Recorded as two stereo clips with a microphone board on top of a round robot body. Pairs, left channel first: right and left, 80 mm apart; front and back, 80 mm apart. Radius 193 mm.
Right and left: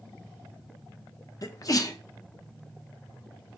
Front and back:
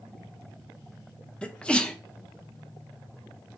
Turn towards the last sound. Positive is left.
turn(degrees=-75)